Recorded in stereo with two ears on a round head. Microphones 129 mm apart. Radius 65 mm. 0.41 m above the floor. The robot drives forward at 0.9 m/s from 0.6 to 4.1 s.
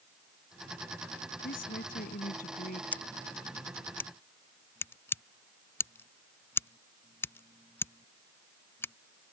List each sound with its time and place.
1.4 s a woman speaking: 75° left (ahead or behind); by 2.8 s 65° left (ahead or behind)
2.9 s scissors: 10° left (ahead or behind); by 8.9 s 15° left (ahead or behind)